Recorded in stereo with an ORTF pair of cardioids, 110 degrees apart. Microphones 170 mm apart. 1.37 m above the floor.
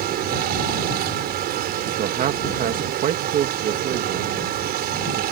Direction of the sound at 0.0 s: 70° right.